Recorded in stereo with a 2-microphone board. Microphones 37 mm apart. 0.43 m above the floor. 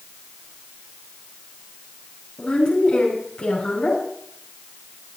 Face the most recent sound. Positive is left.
turn(degrees=50)  # may be behind; listen again after turning